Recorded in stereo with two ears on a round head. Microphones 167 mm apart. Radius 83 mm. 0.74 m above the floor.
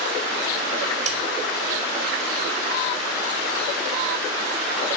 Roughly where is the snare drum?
Right.